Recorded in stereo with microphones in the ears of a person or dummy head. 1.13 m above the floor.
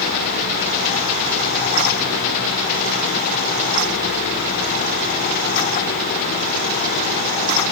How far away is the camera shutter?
No camera shutter in this recording.